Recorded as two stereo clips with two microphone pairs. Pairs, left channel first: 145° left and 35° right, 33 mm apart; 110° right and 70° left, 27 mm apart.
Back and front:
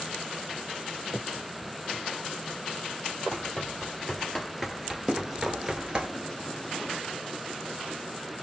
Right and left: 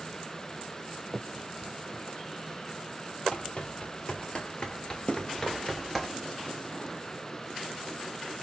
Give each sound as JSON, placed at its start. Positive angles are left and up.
{"t": 1.1, "sound": "a finger snap", "azimuth_deg": -15, "distance_m": 0.8}
{"t": 3.3, "sound": "running footsteps", "azimuth_deg": -155, "distance_m": 1.9}
{"t": 5.1, "sound": "running footsteps", "azimuth_deg": -105, "distance_m": 1.3}